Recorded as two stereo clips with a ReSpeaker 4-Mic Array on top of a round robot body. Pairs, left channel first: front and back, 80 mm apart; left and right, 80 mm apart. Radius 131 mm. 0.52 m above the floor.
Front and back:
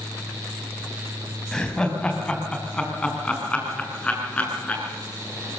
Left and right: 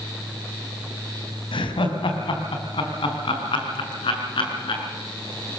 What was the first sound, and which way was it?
Laughter, 80° left.